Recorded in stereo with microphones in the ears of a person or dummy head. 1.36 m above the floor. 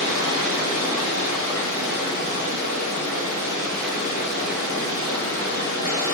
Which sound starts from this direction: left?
Running water, at 0.0 s.